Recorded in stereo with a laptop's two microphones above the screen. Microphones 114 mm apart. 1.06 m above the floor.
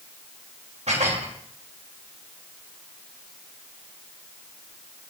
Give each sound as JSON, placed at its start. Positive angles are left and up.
{"t": 0.9, "sound": "dishes clattering", "side_deg": -75, "distance_m": 3.0}